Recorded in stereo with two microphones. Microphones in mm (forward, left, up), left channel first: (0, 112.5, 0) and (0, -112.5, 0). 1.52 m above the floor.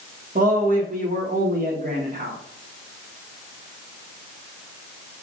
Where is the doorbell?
I don't hear a doorbell.